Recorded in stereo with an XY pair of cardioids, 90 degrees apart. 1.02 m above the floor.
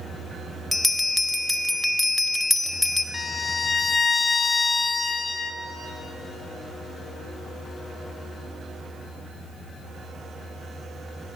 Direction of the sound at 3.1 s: 30° left.